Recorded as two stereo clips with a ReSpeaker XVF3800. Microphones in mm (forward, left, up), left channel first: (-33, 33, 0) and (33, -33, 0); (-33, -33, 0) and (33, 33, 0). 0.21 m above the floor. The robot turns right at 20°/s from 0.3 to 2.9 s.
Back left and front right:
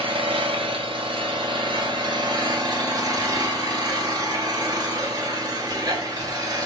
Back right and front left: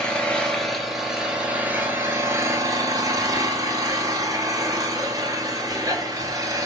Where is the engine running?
55° right, 0.8 m; by 6.7 s 5° right, 0.8 m.